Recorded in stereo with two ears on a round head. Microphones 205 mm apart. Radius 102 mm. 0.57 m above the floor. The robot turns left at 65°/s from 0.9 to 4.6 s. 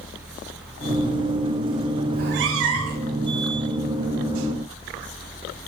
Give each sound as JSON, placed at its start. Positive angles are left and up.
{"t": 2.1, "sound": "a cat meowing", "azimuth_deg": -45, "distance_m": 0.5}